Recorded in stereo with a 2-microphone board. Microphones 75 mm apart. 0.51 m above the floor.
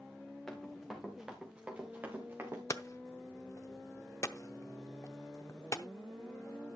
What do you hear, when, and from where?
0.5 s running footsteps: 5° left (ahead or behind), 3 m; by 2.6 s 35° right (ahead or behind), 3 m
2.7 s hammering: 40° left (ahead or behind), 0.6 m